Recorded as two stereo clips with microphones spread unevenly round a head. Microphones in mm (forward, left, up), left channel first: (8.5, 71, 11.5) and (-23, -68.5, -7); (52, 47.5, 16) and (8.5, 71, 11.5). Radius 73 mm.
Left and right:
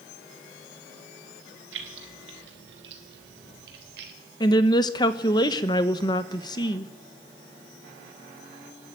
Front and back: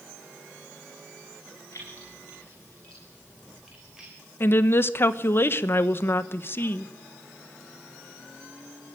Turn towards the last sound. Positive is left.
turn(degrees=15)